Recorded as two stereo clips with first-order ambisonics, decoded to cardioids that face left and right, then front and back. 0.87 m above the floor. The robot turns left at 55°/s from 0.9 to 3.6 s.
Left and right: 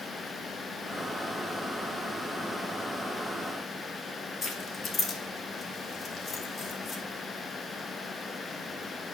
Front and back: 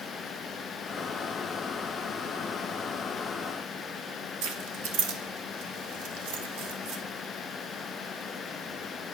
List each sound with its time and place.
4.4 s keys jangling: 155° left, 0.9 m